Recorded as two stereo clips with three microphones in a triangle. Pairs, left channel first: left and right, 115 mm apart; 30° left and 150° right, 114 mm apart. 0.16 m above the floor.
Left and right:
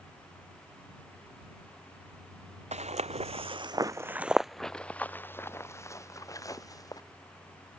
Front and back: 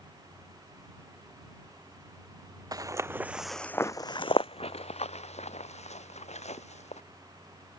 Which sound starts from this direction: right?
Footsteps, at 2.7 s.